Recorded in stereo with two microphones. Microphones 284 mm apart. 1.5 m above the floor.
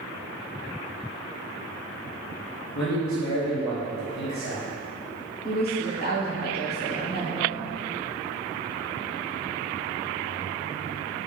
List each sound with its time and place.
2.8 s a man speaking: 75° left (ahead or behind), 0.6 m
5.4 s a woman speaking: 35° left (ahead or behind), 0.8 m